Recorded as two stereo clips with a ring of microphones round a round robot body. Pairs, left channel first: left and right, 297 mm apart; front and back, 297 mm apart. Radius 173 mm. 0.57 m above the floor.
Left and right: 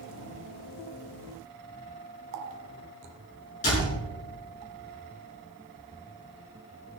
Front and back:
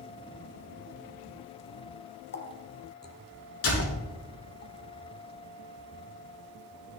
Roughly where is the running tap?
Ahead right.